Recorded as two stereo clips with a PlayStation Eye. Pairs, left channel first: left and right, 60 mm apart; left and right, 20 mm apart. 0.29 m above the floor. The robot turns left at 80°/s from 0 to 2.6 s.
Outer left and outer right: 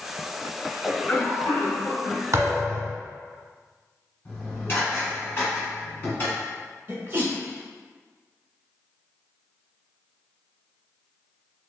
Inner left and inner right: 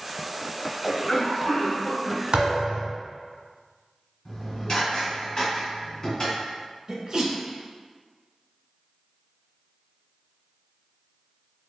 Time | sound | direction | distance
0.8 | a cough | 160° left | 1.2 m
2.3 | a thud | 55° right (ahead or behind) | 1.0 m
4.2 | dishes clattering | 35° left (ahead or behind) | 1.8 m
6.9 | a sneeze | 30° right (ahead or behind) | 1.0 m